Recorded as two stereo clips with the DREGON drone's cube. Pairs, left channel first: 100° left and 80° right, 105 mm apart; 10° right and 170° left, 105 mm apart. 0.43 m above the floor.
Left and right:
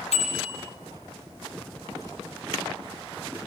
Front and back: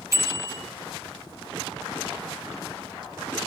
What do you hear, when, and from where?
0.1 s a bicycle bell: 105° left, 7.5 m